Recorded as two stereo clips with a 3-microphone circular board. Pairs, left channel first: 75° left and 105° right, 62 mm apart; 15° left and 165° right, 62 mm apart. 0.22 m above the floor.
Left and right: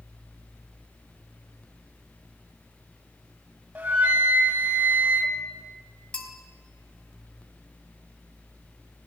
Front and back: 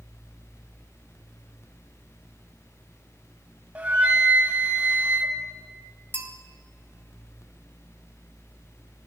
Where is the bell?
145° left, 1.3 m.